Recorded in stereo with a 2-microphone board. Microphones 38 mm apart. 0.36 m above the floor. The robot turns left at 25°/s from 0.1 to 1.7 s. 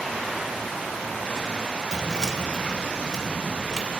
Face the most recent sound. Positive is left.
turn(degrees=-20)  # may be behind; listen again after turning